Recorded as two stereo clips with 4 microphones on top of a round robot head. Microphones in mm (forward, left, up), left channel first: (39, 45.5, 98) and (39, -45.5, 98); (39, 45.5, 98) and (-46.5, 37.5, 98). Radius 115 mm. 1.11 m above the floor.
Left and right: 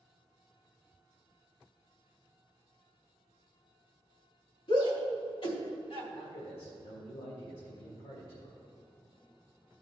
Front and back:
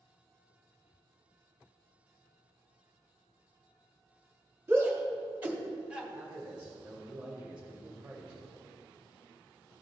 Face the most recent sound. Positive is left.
turn(degrees=110)